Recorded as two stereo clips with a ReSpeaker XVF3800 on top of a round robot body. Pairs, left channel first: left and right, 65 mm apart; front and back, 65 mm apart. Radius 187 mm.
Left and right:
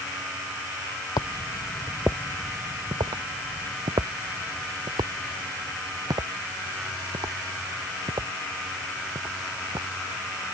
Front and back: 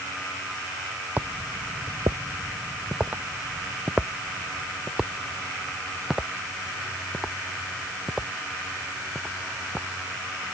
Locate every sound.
1.2 s footsteps: 110° left; by 9.9 s 95° right